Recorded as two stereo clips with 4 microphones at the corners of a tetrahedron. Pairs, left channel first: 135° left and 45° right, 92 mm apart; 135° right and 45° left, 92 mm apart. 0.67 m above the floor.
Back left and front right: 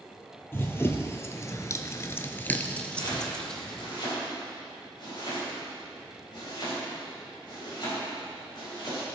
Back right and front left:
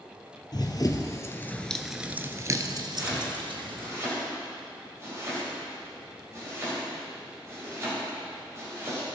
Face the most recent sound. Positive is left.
turn(degrees=105)